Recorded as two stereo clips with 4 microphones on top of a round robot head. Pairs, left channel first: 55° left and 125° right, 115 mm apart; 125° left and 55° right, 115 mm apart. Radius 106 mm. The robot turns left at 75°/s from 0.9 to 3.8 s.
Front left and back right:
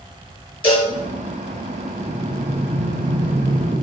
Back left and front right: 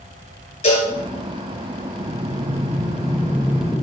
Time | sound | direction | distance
0.6 | a cowbell | 100° left | 6 m
2.0 | breathing | 40° right | 0.9 m